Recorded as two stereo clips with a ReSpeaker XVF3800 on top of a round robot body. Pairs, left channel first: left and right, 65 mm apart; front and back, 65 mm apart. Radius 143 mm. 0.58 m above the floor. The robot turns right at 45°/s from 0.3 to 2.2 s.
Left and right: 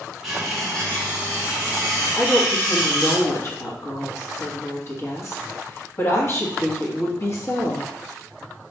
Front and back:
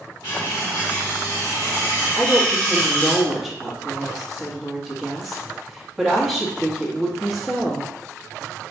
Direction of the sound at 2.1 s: 90° left.